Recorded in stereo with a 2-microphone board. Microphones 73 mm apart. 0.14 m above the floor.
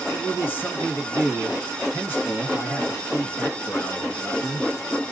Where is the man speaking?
30° left (ahead or behind), 1.9 m.